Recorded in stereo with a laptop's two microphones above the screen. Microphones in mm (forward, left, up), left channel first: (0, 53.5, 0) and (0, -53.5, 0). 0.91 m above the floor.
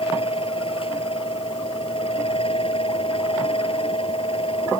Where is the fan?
60° left (ahead or behind).